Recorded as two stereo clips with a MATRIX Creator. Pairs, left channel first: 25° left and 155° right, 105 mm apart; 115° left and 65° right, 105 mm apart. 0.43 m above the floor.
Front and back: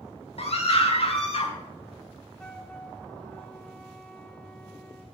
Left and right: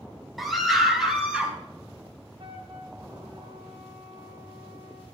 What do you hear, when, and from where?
0.4 s a scream: 20° left, 4 m; by 1.5 s 10° left, 3.5 m
2.4 s a flute: 55° right, 1.6 m